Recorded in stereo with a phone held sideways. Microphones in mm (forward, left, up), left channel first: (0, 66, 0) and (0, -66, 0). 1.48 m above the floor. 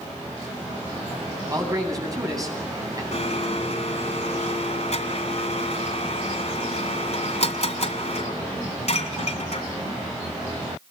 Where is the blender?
60° left (ahead or behind), 2.5 m.